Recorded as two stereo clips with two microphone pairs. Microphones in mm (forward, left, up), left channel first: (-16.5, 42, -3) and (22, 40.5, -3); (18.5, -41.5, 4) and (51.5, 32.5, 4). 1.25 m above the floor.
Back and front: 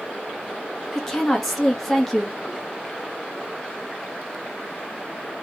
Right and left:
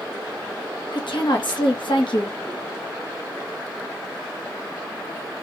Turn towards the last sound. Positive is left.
turn(degrees=-100)